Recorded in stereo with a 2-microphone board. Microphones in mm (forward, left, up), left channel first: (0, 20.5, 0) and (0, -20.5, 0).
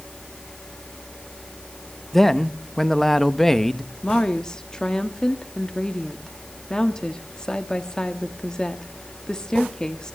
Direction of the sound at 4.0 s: 20° left (ahead or behind).